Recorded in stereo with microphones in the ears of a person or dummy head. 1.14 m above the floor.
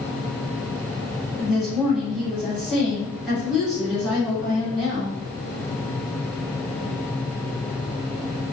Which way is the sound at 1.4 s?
Centre (ahead or behind).